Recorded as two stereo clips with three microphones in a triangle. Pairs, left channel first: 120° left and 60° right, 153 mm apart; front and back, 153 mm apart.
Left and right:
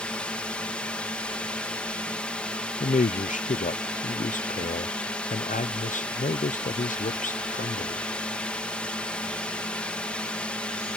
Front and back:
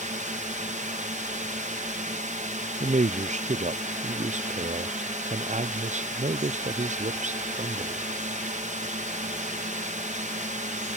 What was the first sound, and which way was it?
A drone, 155° right.